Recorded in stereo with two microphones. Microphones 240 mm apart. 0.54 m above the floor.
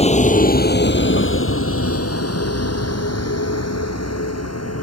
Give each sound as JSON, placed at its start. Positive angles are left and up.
{"t": 0.0, "sound": "a vehicle", "side_deg": 25}